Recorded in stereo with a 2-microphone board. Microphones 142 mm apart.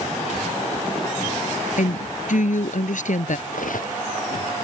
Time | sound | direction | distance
1.8 | a woman speaking | 70° left (ahead or behind) | ?
3.5 | cutlery clinking | 75° left (ahead or behind) | ?